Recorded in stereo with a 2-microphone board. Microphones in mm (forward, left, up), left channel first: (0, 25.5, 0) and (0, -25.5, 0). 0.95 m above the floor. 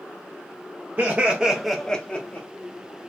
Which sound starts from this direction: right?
Laughter, at 1.0 s.